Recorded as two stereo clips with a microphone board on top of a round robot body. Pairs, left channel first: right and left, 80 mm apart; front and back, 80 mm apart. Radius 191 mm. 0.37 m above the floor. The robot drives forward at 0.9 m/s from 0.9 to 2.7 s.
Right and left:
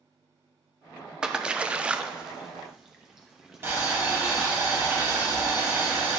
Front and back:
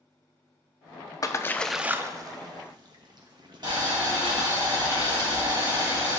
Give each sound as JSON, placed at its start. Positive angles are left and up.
{"t": 1.2, "sound": "a splash", "azimuth_deg": 15, "distance_m": 0.8}
{"t": 3.6, "sound": "boiling", "azimuth_deg": 155, "distance_m": 2.0}